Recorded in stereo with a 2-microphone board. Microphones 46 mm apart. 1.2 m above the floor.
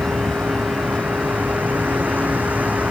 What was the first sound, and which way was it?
A vehicle, 40° right (ahead or behind).